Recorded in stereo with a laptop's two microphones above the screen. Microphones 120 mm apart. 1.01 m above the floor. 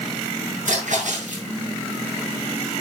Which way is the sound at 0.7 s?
80° right.